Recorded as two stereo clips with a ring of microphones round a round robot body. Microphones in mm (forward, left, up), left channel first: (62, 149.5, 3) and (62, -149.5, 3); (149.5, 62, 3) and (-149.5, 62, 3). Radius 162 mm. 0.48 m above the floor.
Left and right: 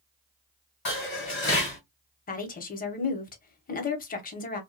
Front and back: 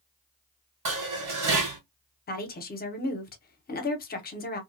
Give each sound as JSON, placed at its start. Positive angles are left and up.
{"t": 0.8, "sound": "dishes clattering", "azimuth_deg": 145, "distance_m": 2.0}
{"t": 2.3, "sound": "a woman speaking", "azimuth_deg": 45, "distance_m": 0.8}